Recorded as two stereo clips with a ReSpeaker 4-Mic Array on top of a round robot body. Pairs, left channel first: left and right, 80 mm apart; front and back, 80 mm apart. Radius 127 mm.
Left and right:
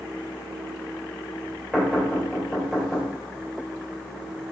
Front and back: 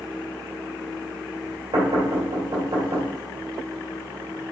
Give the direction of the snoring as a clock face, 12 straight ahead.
I don't hear snoring.